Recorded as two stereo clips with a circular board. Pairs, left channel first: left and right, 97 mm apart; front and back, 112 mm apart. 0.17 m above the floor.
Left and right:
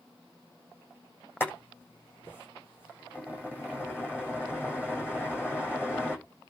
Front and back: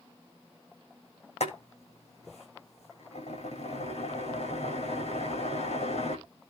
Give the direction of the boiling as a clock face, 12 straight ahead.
11 o'clock.